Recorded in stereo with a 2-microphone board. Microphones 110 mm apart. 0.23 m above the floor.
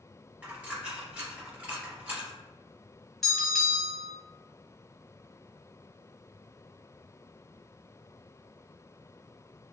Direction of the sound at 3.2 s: Centre (ahead or behind).